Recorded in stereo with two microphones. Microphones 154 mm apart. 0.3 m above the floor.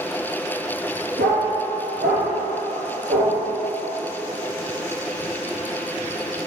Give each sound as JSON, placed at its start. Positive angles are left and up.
{"t": 1.2, "sound": "a dog barking", "side_deg": -80, "distance_m": 1.8}